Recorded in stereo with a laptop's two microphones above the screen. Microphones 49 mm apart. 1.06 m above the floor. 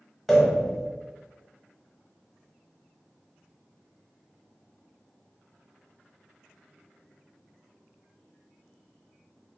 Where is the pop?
5° left (ahead or behind), 1.0 m.